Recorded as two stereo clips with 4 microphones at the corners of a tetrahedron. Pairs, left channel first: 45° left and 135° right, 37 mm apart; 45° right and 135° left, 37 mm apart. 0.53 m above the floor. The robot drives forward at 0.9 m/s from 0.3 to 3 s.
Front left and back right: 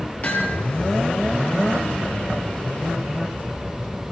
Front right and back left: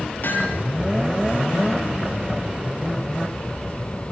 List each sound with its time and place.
0.2 s hammering: straight ahead, 6 m